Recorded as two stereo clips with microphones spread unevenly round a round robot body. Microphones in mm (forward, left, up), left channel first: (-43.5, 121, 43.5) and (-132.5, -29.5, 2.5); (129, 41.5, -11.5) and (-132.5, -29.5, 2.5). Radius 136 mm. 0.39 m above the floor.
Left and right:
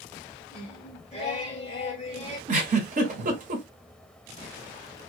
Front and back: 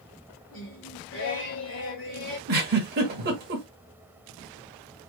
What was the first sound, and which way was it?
Singing, 5° right.